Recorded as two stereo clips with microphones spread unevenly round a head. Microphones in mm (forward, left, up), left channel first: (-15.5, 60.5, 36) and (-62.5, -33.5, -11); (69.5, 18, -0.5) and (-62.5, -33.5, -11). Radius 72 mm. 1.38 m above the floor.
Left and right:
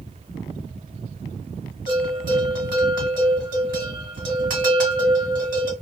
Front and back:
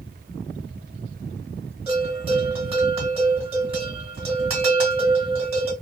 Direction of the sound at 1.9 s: 110° right.